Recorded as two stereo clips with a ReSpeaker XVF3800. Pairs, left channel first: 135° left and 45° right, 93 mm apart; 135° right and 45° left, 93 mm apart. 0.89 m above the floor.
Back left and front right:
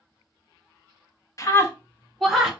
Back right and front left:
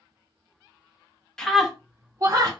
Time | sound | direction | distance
1.4 | a scream | 145° left | 0.7 m